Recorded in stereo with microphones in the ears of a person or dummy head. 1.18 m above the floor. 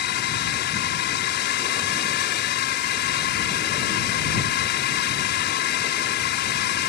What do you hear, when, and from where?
0.0 s a drone: 50° left (ahead or behind)